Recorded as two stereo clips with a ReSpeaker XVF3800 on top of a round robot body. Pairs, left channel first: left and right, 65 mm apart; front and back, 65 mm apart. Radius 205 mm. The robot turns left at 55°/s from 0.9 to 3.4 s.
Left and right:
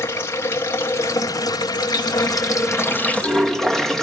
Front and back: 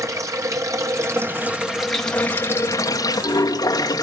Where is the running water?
145° left, 2.0 m; by 4.0 s 5° left, 2.0 m.